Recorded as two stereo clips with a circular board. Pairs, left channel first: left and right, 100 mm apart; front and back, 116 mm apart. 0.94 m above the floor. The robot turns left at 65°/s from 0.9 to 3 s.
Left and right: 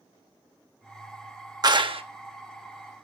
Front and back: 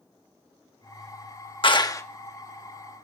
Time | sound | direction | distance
1.6 | a clap | 40° right | 0.9 m